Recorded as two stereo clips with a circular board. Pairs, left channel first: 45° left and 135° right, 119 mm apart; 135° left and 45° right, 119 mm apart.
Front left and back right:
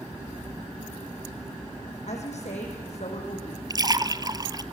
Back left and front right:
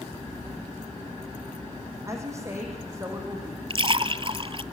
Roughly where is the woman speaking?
Ahead.